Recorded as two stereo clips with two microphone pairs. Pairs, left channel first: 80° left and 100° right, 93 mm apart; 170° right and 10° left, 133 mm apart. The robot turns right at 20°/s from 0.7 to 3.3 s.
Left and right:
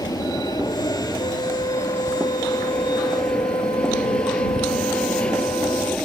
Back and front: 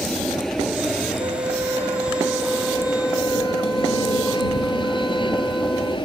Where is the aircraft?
105° left; by 6.1 s 155° left.